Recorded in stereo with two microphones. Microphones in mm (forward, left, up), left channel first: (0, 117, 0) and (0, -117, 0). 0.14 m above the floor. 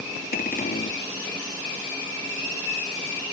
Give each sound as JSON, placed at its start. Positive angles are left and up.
{"t": 0.3, "sound": "a cupboard door", "side_deg": 40}